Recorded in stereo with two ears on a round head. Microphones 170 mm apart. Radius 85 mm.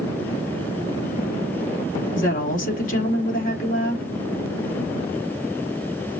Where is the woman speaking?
45° left (ahead or behind), 2 m.